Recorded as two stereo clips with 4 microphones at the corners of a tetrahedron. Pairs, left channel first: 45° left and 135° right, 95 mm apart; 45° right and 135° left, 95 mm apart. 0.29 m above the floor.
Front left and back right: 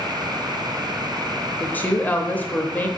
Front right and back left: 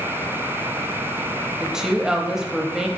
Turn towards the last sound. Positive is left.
turn(degrees=65)